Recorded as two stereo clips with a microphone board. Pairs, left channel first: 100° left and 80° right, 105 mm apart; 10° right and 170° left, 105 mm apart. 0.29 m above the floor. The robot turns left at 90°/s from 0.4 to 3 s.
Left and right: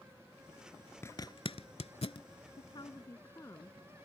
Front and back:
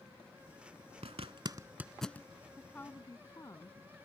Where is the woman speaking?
80° left; by 4.0 s 40° left.